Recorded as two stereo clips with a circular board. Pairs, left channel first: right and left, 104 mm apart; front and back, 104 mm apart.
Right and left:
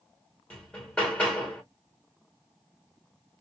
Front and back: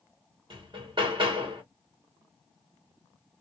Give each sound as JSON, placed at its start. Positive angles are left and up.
{"t": 0.5, "sound": "hammering", "azimuth_deg": -170, "distance_m": 1.4}